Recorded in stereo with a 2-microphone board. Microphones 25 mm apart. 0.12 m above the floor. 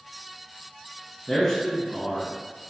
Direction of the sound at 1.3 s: Centre (ahead or behind).